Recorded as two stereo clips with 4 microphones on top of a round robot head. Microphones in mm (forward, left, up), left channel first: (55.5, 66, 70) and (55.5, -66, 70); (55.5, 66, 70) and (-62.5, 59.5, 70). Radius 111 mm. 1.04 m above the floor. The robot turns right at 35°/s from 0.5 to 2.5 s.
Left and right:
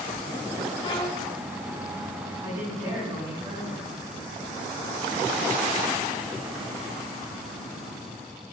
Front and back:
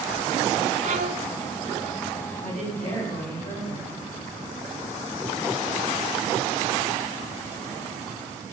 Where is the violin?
155° left, 1.0 m; by 1.3 s 170° left, 1.0 m.